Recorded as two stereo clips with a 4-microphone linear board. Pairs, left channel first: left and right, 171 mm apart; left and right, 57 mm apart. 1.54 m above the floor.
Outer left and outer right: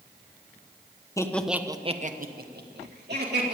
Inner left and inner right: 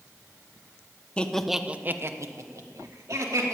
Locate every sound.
1.2 s laughter: 20° left (ahead or behind), 1.0 m; by 3.6 s 85° right, 2.5 m